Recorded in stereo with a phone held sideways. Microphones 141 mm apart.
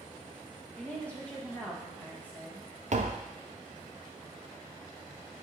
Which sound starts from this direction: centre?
A woman speaking, at 0.8 s.